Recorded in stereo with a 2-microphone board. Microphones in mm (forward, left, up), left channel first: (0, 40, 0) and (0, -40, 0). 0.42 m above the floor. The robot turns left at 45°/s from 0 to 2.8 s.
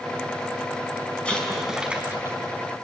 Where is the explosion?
15° left, 5 m; by 2.4 s 35° right, 5 m.